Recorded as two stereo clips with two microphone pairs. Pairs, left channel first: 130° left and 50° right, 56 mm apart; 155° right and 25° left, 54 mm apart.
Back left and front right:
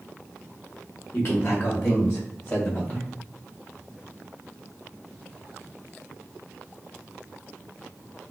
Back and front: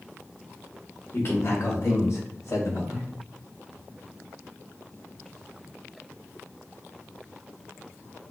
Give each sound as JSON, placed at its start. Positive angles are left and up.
{"t": 1.1, "sound": "a man speaking", "azimuth_deg": 165, "distance_m": 1.3}